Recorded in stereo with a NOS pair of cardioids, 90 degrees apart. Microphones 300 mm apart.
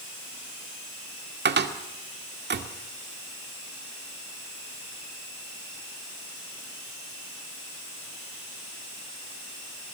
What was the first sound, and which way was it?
A cupboard door, 35° right.